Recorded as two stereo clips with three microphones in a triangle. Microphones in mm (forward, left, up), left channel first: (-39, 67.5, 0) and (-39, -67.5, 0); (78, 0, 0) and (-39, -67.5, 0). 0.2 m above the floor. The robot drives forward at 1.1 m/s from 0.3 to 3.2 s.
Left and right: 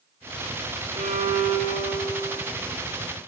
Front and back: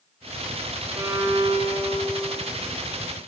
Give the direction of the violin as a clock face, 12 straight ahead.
2 o'clock.